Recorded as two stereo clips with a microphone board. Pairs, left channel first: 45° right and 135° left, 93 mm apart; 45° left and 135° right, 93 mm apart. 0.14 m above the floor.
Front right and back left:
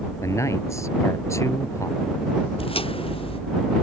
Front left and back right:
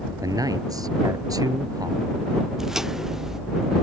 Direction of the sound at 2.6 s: 50° right.